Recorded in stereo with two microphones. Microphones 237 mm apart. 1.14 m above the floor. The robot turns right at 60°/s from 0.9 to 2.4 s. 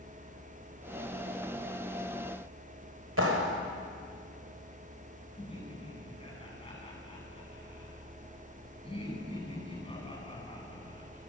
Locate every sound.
3.2 s a clap: 70° right (ahead or behind), 4 m
5.4 s laughter: 25° left (ahead or behind), 9.5 m